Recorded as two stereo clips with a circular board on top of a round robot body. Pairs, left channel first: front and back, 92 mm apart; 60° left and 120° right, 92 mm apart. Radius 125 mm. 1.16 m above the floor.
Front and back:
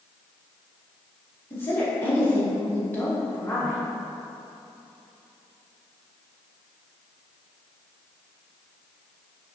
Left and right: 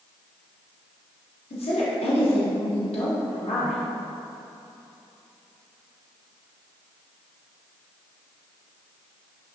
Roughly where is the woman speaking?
Left.